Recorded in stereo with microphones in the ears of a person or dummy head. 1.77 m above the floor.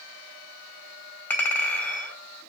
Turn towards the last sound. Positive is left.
turn(degrees=15)  # may be behind; listen again after turning